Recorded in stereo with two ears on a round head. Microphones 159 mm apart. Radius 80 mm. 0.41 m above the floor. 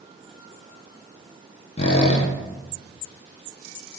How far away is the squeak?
About 0.6 m.